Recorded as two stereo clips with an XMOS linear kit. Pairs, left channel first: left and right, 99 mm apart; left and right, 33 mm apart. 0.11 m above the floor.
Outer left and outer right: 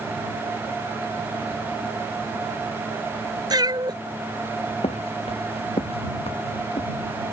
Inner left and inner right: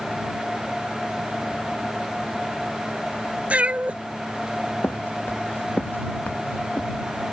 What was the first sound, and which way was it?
A cat meowing, 45° right (ahead or behind).